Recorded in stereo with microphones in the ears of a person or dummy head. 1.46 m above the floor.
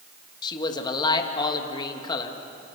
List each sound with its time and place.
0.4 s a man speaking: 25° left (ahead or behind), 2 m